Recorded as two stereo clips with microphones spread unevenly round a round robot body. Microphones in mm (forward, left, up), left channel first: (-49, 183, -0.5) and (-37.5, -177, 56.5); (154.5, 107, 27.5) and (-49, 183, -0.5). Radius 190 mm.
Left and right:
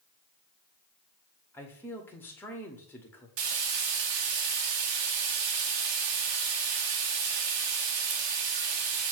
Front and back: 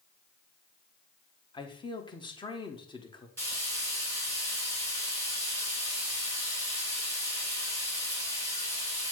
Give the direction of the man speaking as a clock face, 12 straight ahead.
11 o'clock.